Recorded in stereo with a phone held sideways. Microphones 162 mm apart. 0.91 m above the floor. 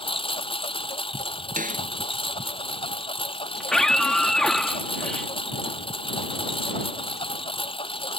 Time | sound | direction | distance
0.0 | a lawn mower | 35° left (ahead or behind) | ?
1.6 | a snare drum | 55° right (ahead or behind) | ?
3.6 | a scream | 5° left (ahead or behind) | ?